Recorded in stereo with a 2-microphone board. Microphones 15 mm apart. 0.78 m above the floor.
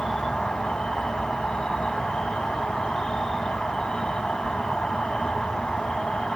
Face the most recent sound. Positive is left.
turn(degrees=70)  # may be behind; listen again after turning